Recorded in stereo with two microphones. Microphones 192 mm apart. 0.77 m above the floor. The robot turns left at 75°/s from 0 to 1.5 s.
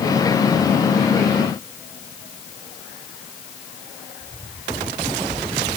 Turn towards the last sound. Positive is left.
No sound to turn to.